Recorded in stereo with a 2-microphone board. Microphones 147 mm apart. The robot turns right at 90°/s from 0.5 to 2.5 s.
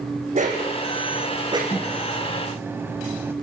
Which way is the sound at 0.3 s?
55° right (ahead or behind).